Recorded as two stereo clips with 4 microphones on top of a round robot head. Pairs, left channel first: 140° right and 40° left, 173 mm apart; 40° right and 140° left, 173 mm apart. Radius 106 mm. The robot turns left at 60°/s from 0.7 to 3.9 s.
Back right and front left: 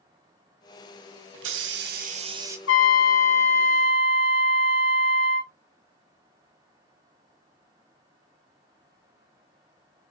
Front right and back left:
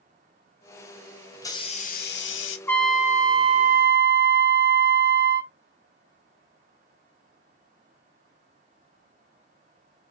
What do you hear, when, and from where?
1.3 s a hiss: 40° left, 0.6 m; by 2.6 s 35° right, 0.6 m
2.7 s a trumpet: 120° right, 0.7 m; by 5.5 s 165° left, 0.7 m